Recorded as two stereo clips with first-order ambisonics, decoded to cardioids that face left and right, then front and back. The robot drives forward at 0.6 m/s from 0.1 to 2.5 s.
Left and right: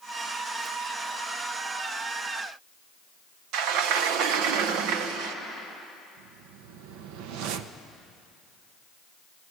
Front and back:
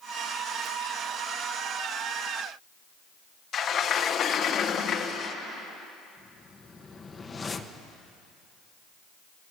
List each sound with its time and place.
3.5 s a sliding door: 60° right, 1.2 m
6.2 s a whoosh: 75° right, 1.0 m